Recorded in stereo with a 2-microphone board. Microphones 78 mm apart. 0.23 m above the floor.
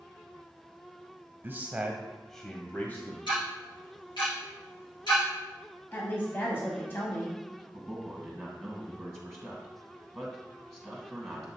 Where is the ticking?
80° left, 3 m.